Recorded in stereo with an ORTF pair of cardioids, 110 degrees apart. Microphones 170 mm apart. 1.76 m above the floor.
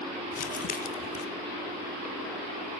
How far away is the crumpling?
About 1.0 m.